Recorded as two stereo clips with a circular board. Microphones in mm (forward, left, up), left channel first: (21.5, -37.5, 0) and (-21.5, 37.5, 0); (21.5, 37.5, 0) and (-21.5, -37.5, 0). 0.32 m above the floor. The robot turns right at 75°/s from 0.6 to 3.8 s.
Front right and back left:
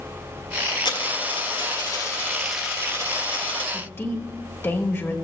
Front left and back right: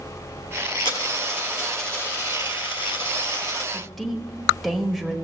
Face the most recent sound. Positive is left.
turn(degrees=-30)